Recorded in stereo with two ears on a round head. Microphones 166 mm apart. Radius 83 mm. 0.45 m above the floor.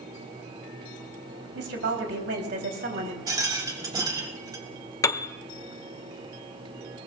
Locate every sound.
1.6 s a woman speaking: 65° right (ahead or behind), 3 m; by 3.2 s 55° right (ahead or behind), 3 m
3.3 s a rattle: 20° right (ahead or behind), 2 m
5.0 s a piano: 15° left (ahead or behind), 0.7 m